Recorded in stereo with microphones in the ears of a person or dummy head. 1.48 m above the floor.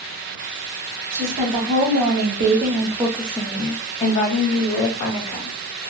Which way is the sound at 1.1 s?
75° right (ahead or behind).